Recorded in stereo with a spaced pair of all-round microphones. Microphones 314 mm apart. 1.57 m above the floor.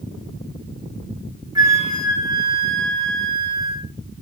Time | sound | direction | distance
1.6 | a flute | 10° right (ahead or behind) | 2.5 m